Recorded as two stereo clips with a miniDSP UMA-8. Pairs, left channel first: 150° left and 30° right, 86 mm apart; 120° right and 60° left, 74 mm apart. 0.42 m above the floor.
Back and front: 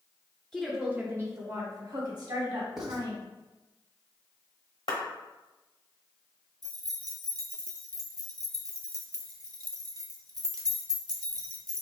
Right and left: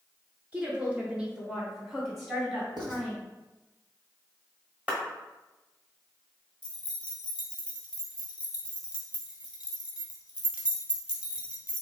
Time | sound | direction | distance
0.5 | a woman speaking | 75° left | 0.9 m
2.8 | writing | 55° left | 1.0 m
4.9 | a clap | 135° left | 1.3 m
6.6 | keys jangling | 10° right | 0.9 m